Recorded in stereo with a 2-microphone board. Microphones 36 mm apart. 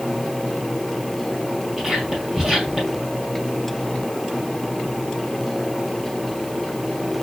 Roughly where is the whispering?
Centre.